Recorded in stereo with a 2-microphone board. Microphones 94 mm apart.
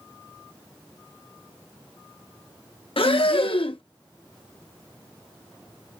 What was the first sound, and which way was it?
Breathing, 70° left (ahead or behind).